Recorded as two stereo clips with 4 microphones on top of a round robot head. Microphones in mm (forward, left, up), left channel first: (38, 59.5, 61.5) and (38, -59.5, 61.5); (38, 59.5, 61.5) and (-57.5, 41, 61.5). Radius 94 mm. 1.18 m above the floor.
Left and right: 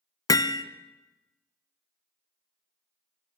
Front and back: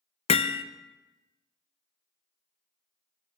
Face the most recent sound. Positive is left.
turn(degrees=30)